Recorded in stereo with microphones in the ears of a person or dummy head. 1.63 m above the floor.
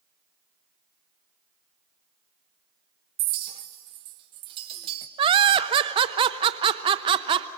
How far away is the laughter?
About 0.8 m.